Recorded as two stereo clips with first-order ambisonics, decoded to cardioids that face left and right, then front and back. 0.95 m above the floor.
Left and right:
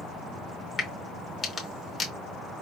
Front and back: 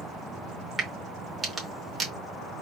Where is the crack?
135° left, 0.8 m.